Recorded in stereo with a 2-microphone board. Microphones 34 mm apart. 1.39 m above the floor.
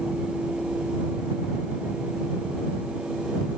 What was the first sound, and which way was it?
Only background noise.